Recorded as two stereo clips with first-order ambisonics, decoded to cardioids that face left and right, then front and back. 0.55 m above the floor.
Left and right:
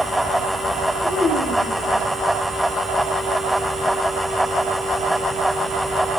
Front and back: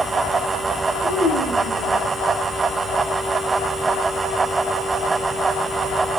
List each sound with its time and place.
1.0 s a child speaking: 15° left, 5 m